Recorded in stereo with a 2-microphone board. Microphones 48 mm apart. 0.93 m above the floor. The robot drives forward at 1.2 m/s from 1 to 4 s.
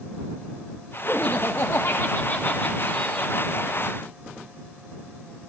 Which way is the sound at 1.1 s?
30° left (ahead or behind).